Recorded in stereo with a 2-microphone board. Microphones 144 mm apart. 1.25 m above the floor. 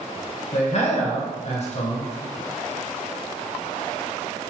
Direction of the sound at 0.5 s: 55° left (ahead or behind).